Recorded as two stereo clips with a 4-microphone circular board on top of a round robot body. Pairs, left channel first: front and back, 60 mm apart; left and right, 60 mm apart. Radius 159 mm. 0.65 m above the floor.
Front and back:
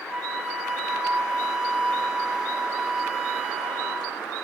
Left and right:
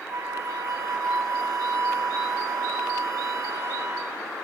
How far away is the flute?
About 3 m.